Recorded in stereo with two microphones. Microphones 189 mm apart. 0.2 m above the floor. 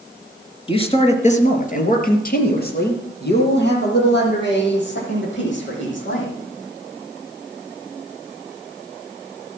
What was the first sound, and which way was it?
A man speaking, 25° left (ahead or behind).